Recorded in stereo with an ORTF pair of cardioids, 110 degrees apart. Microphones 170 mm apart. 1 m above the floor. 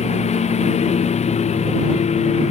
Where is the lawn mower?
40° left.